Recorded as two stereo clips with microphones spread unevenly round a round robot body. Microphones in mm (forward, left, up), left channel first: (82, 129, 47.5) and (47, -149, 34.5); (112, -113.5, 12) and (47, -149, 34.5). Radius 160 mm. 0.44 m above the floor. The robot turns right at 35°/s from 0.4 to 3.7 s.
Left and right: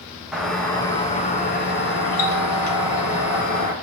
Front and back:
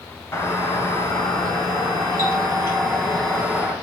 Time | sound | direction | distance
0.3 | a doorbell | 10° right | 3.5 m